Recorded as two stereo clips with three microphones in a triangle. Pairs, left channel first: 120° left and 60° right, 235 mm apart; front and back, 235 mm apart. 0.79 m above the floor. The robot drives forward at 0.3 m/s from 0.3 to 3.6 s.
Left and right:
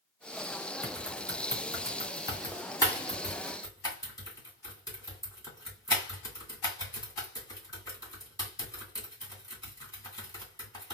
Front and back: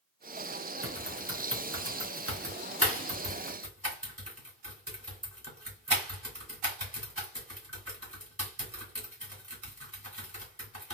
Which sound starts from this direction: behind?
Typing on a keyboard, at 0.8 s.